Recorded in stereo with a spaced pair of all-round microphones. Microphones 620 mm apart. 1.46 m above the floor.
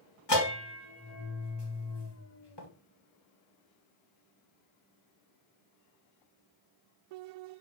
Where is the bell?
40° left (ahead or behind), 1.8 m.